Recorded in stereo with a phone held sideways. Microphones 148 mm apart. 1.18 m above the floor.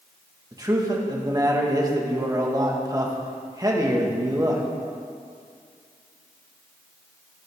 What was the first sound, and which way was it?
A man speaking, 25° right (ahead or behind).